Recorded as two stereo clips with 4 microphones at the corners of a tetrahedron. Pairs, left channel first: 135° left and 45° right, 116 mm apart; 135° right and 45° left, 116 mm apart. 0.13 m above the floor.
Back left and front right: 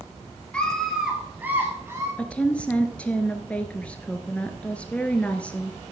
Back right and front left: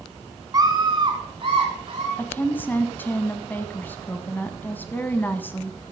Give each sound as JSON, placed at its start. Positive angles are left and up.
{"t": 0.5, "sound": "a scream", "azimuth_deg": 65, "distance_m": 1.3}
{"t": 2.2, "sound": "a woman speaking", "azimuth_deg": -170, "distance_m": 1.0}